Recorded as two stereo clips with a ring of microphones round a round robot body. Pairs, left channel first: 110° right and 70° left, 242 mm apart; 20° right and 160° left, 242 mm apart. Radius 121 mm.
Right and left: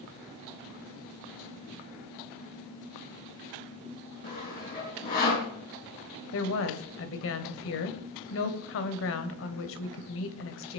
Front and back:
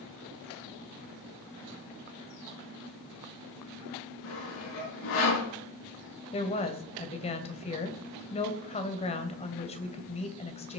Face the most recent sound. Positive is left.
turn(degrees=-85)